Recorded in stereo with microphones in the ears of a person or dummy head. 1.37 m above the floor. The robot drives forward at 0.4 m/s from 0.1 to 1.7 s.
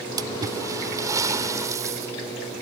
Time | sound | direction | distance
0.2 | a splash | 20° right (ahead or behind) | ?